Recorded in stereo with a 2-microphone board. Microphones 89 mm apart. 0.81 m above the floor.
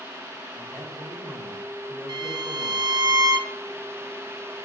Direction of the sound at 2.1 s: 55° right (ahead or behind).